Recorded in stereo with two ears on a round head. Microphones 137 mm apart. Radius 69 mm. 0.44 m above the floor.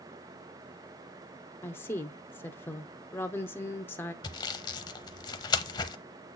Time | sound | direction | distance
1.6 | a woman speaking | 15° left (ahead or behind) | 0.7 m
4.2 | sawing | 25° left (ahead or behind) | 0.7 m